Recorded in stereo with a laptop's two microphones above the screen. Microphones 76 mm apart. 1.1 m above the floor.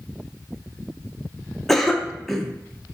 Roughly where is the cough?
Centre.